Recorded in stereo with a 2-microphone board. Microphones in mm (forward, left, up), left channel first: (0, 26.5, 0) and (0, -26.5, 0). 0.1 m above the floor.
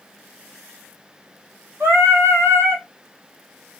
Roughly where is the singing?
Right.